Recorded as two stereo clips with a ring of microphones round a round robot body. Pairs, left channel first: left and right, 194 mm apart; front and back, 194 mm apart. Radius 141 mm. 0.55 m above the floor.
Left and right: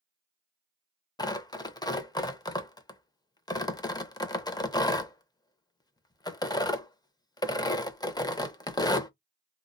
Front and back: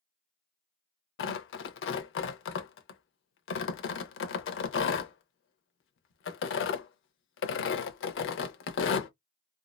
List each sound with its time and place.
1.2 s tearing paper: 20° left, 0.6 m